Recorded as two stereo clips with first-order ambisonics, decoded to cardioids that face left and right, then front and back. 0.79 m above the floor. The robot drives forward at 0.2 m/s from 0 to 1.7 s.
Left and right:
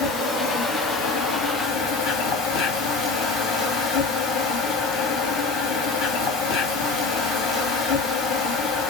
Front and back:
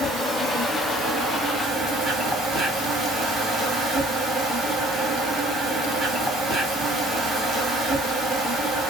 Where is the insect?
95° left, 2.5 m; by 8.9 s 105° left, 2.5 m.